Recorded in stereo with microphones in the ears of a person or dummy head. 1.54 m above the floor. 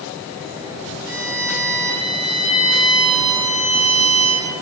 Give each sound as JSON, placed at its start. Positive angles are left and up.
{"t": 1.1, "sound": "a violin", "side_deg": 55, "distance_m": 6.5}